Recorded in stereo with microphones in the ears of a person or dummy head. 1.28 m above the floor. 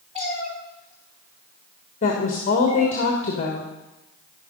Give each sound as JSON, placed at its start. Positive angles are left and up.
{"t": 0.1, "sound": "a cat meowing", "side_deg": -30, "distance_m": 1.4}
{"t": 2.0, "sound": "a woman speaking", "side_deg": 45, "distance_m": 1.4}